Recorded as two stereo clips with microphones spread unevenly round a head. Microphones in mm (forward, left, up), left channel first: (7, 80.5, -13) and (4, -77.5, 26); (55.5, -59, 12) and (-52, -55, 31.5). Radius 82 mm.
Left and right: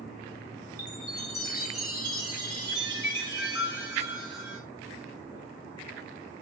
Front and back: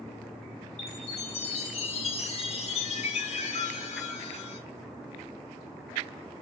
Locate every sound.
0.8 s a chime: 20° right, 4.5 m